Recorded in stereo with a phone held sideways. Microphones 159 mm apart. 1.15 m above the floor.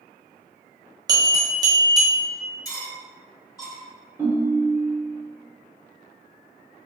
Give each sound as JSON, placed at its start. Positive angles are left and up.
{"t": 1.1, "sound": "a bell", "side_deg": -25, "distance_m": 1.1}
{"t": 2.6, "sound": "cutlery clinking", "side_deg": 20, "distance_m": 1.1}
{"t": 4.2, "sound": "a ringtone", "side_deg": -15, "distance_m": 0.9}